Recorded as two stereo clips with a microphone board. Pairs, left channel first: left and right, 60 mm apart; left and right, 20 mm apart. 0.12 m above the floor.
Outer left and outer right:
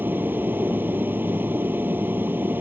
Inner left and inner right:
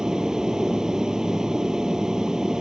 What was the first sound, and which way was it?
An aircraft, 35° right (ahead or behind).